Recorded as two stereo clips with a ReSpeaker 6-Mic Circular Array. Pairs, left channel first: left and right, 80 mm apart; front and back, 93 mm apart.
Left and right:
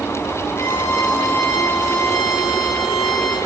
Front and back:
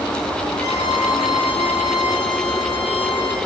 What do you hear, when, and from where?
0.6 s a violin: 20° left, 8 m